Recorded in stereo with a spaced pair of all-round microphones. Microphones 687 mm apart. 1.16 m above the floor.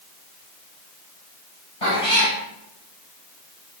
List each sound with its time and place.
1.8 s a cat meowing: 50° left (ahead or behind), 3.5 m